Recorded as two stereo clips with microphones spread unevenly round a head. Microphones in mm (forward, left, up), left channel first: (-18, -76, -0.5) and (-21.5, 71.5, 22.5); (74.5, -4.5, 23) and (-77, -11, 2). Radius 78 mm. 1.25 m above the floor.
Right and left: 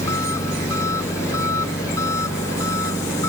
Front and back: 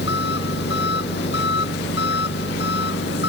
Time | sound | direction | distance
0.0 | an engine running | 15° right | ?